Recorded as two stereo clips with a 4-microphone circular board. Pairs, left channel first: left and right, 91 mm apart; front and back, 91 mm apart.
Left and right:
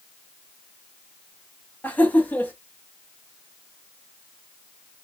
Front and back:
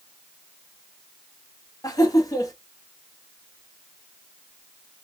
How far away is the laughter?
About 1.3 m.